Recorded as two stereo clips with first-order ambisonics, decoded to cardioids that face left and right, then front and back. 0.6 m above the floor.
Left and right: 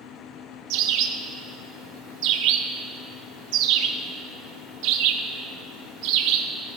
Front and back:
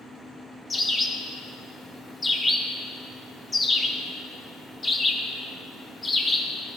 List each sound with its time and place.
0.7 s a bird: 80° right, 0.5 m